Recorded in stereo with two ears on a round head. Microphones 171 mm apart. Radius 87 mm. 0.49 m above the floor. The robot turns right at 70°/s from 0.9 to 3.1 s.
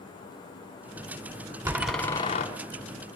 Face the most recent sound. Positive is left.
turn(degrees=85)